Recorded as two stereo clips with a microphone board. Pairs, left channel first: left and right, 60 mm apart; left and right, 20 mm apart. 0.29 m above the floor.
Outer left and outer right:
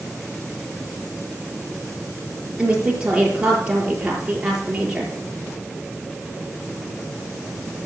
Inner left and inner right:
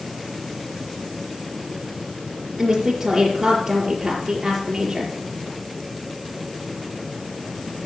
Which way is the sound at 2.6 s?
20° right (ahead or behind).